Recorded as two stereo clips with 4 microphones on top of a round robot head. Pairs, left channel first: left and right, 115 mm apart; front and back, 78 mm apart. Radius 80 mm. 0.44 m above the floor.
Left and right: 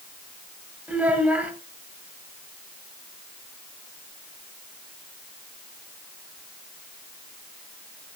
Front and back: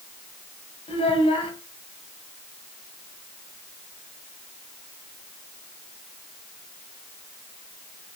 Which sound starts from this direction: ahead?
A child speaking, at 0.9 s.